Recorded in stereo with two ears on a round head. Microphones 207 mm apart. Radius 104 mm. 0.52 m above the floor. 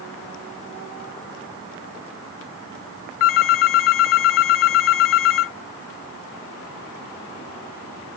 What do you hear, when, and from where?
3.2 s a phone ringing: 60° left (ahead or behind)